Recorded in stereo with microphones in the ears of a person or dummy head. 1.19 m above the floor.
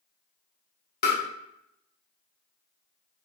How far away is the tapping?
About 1.0 m.